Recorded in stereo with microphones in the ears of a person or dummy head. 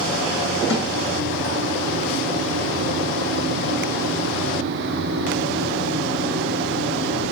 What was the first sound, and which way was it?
A snare drum, 65° left (ahead or behind).